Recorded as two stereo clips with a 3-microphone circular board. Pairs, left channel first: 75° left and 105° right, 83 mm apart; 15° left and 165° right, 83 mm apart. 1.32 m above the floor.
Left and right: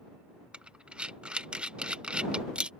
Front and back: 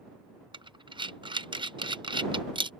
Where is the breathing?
Straight behind.